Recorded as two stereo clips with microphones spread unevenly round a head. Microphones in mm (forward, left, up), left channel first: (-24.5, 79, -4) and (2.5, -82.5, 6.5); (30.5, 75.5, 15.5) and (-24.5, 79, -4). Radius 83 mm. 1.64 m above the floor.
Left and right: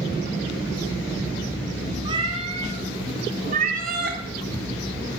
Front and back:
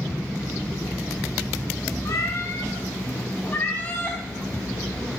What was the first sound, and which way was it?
A cat meowing, 20° right.